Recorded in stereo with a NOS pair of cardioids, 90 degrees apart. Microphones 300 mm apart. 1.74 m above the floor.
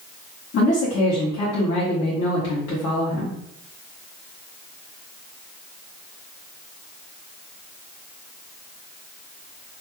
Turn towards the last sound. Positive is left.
turn(degrees=55)